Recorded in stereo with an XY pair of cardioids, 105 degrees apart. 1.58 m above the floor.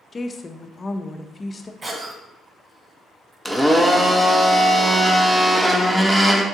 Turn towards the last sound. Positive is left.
turn(degrees=-10)